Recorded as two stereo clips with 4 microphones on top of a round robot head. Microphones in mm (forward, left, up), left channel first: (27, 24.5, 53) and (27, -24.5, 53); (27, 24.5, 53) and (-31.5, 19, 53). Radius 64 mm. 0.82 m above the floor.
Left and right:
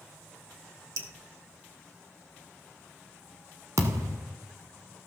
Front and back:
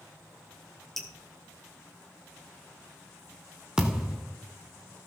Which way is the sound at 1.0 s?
80° right.